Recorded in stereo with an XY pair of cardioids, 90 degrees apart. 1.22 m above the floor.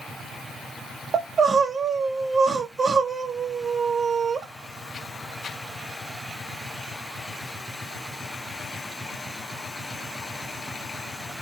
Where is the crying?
45° right, 1.1 m.